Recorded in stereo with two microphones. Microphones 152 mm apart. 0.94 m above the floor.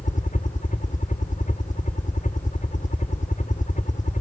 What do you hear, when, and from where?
0.0 s a helicopter: 55° left (ahead or behind)